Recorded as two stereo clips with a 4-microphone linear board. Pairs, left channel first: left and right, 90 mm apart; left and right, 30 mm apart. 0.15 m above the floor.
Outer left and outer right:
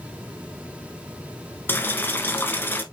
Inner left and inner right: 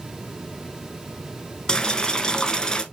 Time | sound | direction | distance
1.7 | boiling | 25° left (ahead or behind) | 0.7 m